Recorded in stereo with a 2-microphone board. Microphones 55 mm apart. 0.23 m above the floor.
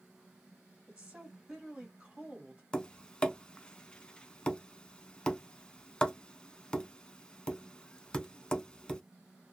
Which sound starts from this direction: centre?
Tapping, at 2.7 s.